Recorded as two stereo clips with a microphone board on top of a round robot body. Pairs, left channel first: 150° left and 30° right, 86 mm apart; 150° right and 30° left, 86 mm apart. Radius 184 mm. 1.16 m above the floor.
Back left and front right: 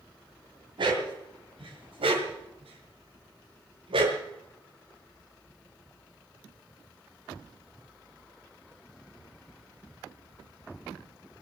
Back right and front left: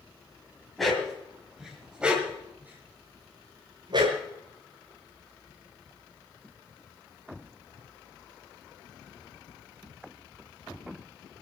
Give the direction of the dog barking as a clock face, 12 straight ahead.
2 o'clock.